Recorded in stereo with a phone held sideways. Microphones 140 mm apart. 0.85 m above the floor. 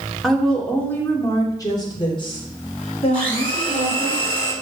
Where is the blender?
10° left (ahead or behind), 5.5 m.